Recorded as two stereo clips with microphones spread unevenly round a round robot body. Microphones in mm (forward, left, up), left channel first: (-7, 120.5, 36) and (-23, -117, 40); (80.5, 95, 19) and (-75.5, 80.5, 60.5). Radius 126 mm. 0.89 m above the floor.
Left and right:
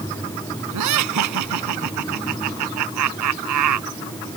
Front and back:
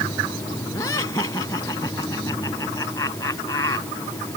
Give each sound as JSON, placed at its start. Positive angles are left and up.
{"t": 0.7, "sound": "laughter", "azimuth_deg": -75}